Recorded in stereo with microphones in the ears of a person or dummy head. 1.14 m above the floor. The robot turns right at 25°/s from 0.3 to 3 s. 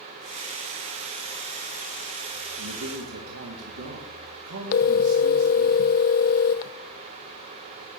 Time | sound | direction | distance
2.6 | a man speaking | 75° right (ahead or behind) | 2 m
4.7 | a phone ringing | 40° left (ahead or behind) | 0.5 m